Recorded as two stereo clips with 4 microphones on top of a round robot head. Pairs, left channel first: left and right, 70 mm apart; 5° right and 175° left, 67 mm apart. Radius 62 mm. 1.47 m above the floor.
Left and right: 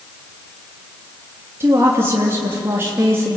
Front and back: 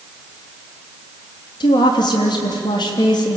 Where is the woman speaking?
25° right, 3 m.